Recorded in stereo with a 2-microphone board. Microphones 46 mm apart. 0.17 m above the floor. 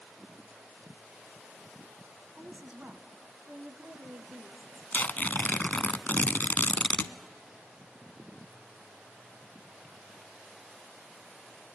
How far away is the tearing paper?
About 0.5 m.